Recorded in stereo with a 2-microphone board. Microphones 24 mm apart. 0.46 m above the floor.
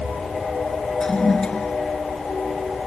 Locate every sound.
1.0 s a toilet flushing: 40° left (ahead or behind)